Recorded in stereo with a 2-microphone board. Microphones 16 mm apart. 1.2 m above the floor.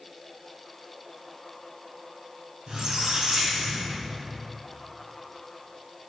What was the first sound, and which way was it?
A squeak, 50° right (ahead or behind).